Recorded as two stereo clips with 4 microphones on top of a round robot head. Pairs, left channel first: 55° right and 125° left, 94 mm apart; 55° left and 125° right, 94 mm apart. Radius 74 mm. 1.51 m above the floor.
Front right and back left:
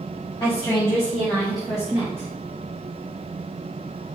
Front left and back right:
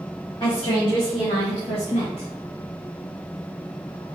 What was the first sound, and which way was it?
A woman speaking, 5° left.